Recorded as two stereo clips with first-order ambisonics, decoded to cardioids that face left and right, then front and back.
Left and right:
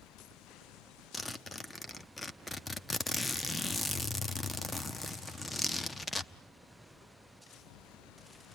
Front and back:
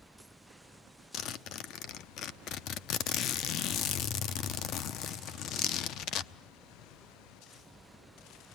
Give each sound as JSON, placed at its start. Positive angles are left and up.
{"t": 1.1, "sound": "a zipper", "azimuth_deg": 15, "distance_m": 0.7}